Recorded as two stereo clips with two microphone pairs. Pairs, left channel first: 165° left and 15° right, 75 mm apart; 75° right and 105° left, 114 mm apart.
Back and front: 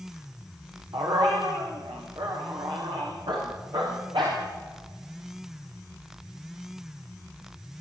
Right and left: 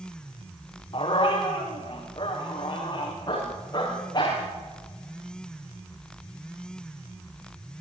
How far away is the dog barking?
About 6.5 m.